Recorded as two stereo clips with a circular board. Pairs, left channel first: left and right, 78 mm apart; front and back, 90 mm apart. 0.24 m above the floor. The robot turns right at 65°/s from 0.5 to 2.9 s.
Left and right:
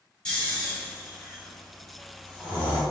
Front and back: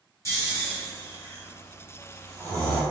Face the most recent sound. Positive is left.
turn(degrees=180)